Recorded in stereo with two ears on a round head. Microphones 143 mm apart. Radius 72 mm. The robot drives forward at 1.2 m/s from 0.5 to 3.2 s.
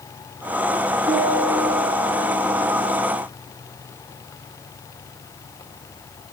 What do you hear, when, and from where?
1.1 s a piano: 35° right (ahead or behind), 5.5 m; by 2.9 s 50° right (ahead or behind), 4 m